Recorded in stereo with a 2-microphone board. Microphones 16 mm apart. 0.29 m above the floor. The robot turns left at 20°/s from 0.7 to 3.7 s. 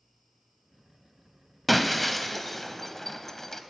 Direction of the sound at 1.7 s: 5° left (ahead or behind).